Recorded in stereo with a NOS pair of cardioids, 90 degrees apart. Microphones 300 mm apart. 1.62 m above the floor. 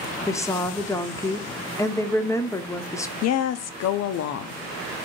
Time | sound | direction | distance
0.3 | a woman speaking | 10° left | 0.7 m
3.2 | a woman speaking | 60° left | 0.6 m